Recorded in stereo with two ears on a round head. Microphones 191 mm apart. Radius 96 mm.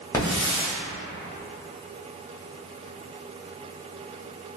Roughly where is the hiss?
Centre.